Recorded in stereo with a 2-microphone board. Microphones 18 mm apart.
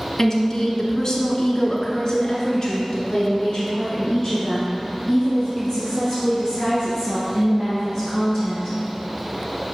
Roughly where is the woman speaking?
Left.